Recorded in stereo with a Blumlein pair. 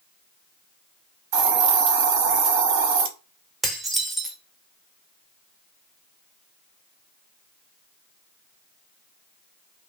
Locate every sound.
1.3 s a hiss: 45° right, 0.6 m
3.6 s dishes clattering: 5° right, 0.6 m